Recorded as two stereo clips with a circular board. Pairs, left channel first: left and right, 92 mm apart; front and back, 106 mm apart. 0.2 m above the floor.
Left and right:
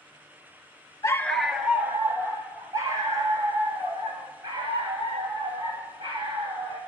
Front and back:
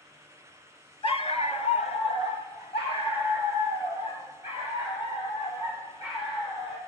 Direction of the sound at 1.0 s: 35° left.